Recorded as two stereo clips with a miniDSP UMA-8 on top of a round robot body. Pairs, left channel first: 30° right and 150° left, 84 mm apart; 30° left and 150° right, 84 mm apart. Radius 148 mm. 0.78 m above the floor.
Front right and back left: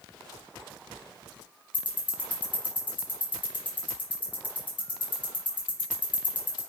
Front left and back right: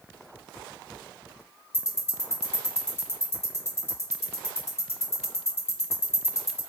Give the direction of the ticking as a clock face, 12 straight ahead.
1 o'clock.